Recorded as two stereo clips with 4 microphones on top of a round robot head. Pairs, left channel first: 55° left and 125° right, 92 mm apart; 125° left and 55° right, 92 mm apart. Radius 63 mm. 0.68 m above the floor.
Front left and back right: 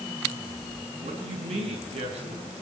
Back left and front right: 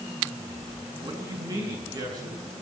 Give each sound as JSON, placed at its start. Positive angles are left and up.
{"t": 1.0, "sound": "a man speaking", "azimuth_deg": -110, "distance_m": 8.0}